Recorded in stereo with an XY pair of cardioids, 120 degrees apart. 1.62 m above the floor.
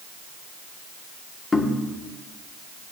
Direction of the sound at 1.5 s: 25° left.